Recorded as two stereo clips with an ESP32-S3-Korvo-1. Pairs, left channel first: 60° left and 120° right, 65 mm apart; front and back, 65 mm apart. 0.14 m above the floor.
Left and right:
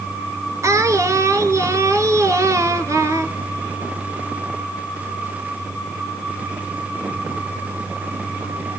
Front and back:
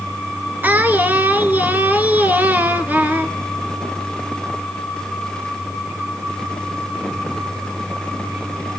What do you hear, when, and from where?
0.6 s singing: 125° right, 1.5 m